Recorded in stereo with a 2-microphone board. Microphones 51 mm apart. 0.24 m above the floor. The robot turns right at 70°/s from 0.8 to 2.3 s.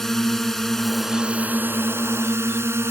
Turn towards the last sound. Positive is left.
turn(degrees=-85)